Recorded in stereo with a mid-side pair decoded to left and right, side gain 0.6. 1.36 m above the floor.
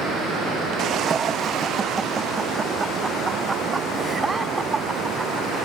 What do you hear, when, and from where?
1.0 s laughter: 35° right; by 5.5 s 15° right